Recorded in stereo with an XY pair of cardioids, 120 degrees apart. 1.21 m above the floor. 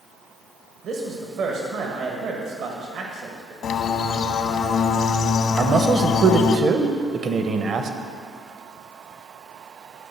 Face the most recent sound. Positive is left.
turn(degrees=-45)